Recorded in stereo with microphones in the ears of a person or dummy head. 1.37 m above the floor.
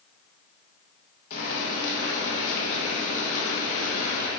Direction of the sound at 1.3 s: 45° left (ahead or behind).